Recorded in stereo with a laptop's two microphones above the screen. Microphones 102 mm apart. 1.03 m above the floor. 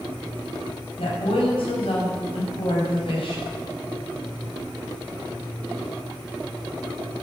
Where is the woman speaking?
65° left (ahead or behind), 5.5 m.